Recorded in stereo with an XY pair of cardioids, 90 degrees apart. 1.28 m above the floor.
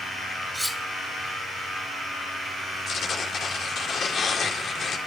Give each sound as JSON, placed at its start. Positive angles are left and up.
{"t": 0.5, "sound": "cutlery clinking", "azimuth_deg": -10, "distance_m": 2.0}
{"t": 2.9, "sound": "tearing paper", "azimuth_deg": 60, "distance_m": 4.5}